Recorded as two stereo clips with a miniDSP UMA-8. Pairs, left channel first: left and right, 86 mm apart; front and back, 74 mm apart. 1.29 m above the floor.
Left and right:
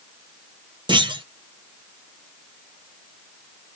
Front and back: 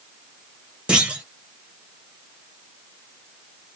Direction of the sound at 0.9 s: 105° right.